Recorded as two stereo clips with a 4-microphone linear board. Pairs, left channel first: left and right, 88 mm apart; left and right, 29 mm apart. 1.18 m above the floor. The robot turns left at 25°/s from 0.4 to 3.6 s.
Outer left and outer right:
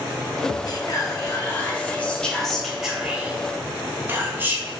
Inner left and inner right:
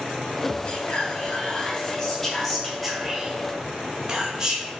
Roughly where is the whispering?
Ahead left.